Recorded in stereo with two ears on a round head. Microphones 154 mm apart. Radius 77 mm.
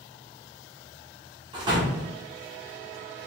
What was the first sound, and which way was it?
A door slam, 25° right (ahead or behind).